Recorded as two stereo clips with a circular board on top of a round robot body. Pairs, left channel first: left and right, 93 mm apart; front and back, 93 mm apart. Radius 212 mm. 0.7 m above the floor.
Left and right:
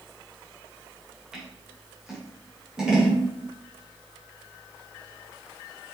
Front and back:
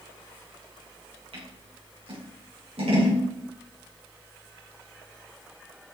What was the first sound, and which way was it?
Scissors, 175° right.